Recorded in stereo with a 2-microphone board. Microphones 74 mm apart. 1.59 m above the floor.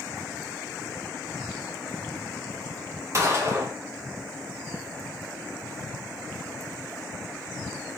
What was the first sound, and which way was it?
A gunshot, 40° right (ahead or behind).